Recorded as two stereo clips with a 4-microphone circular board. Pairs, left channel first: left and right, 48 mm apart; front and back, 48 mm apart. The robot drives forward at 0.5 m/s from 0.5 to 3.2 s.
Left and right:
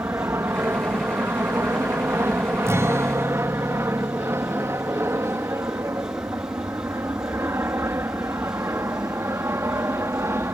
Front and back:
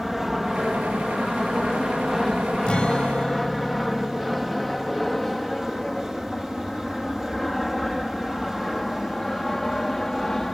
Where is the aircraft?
90° right; by 10.6 s 80° right.